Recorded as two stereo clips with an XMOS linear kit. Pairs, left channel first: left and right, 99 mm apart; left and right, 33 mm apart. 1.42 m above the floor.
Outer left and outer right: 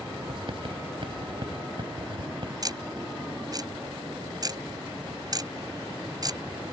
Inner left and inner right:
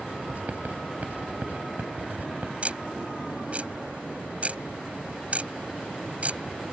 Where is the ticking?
40° right (ahead or behind).